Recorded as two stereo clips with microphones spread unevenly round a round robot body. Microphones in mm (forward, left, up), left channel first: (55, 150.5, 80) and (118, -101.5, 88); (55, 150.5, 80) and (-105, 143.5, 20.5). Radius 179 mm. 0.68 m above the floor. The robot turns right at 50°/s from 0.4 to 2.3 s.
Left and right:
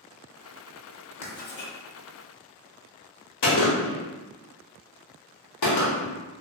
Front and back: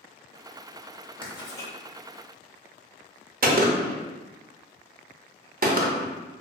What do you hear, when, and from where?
1.2 s writing: 40° left, 0.7 m; by 1.7 s 65° left, 0.7 m
3.4 s a gunshot: 140° left, 0.7 m